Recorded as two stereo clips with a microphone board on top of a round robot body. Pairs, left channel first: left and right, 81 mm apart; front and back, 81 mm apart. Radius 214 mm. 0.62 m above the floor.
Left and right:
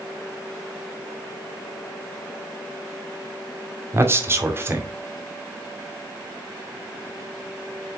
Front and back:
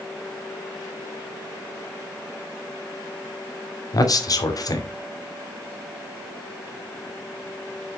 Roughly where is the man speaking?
Ahead right.